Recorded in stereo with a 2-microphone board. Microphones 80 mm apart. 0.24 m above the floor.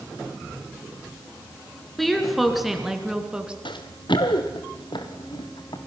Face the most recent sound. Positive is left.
turn(degrees=60)  # may be behind; listen again after turning